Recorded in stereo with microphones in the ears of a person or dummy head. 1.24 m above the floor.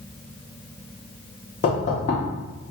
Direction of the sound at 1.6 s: 40° left (ahead or behind).